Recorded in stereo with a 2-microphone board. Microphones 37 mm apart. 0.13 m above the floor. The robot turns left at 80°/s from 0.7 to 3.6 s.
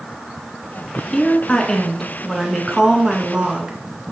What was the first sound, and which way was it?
A woman speaking, 20° left (ahead or behind).